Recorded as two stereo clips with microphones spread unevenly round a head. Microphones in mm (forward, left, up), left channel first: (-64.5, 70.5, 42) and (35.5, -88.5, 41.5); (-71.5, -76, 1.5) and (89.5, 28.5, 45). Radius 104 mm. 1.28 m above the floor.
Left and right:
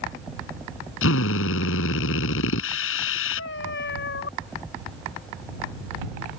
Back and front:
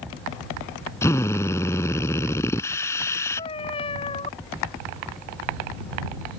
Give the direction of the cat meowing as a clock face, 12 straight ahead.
7 o'clock.